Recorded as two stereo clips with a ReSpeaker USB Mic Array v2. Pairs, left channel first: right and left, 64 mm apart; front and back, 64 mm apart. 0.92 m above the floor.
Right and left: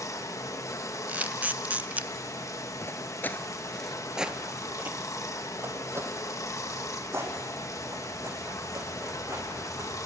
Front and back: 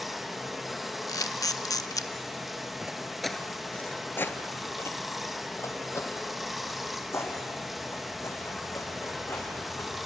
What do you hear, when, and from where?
0.0 s running water: 90° right, 1.0 m
1.1 s a camera shutter: 25° left, 0.7 m
2.8 s footsteps: 105° right, 1.1 m; by 9.9 s 45° left, 6 m